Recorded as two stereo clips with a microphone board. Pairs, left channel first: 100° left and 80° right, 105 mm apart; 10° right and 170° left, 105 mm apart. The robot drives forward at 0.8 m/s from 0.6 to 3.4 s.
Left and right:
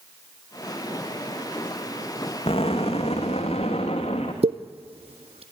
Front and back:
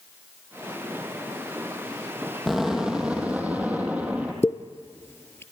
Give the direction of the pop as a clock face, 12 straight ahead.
3 o'clock.